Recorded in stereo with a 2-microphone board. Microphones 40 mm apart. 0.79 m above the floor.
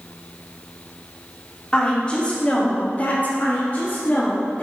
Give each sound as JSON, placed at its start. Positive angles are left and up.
{"t": 1.7, "sound": "a woman speaking", "side_deg": 20, "distance_m": 2.0}
{"t": 3.4, "sound": "a woman speaking", "side_deg": 40, "distance_m": 0.9}